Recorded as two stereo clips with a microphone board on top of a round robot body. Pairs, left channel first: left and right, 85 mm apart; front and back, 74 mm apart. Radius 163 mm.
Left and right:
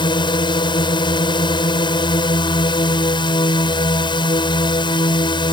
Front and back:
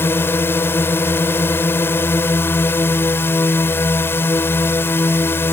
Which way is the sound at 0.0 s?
60° left.